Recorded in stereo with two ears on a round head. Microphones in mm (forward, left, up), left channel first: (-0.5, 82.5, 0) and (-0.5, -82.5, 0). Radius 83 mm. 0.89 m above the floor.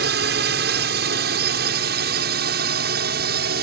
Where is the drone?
65° right (ahead or behind); by 3.6 s 60° right (ahead or behind).